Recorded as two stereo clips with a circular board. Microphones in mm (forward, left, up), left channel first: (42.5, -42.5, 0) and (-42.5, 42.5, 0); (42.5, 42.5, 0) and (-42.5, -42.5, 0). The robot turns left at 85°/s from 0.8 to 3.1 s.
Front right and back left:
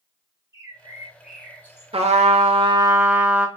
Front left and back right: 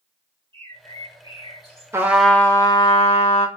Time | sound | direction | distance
0.5 | a bird | 95° left | 1.2 m
1.9 | a trumpet | 160° left | 0.7 m